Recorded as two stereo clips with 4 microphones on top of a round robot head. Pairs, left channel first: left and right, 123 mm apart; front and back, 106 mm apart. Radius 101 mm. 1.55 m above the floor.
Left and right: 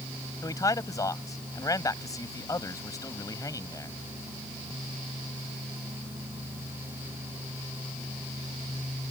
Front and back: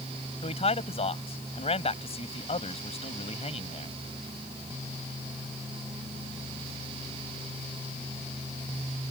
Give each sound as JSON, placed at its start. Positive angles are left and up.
{"t": 0.4, "sound": "a man speaking", "azimuth_deg": 25}